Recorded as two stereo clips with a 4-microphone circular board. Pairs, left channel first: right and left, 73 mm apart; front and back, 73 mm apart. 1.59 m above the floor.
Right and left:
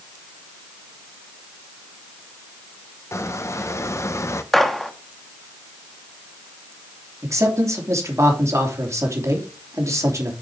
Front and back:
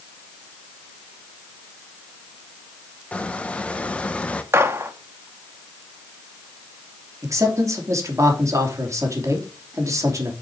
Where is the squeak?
65° right, 0.8 m.